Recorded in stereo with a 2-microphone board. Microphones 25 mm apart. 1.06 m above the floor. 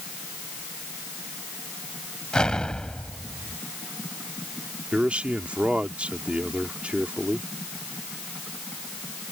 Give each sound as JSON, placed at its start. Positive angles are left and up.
{"t": 2.3, "sound": "an explosion", "side_deg": 35}
{"t": 4.9, "sound": "a man speaking", "side_deg": -50}